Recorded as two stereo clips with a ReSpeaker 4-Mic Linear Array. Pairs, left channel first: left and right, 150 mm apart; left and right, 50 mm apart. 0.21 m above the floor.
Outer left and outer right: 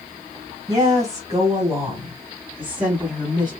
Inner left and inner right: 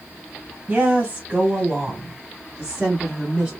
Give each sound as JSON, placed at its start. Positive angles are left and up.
{"t": 0.7, "sound": "a woman speaking", "side_deg": -25, "distance_m": 1.6}